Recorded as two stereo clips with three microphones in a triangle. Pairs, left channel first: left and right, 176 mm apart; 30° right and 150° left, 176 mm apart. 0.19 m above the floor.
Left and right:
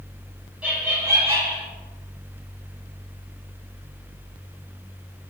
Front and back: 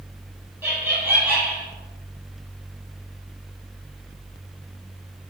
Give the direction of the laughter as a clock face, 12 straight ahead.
5 o'clock.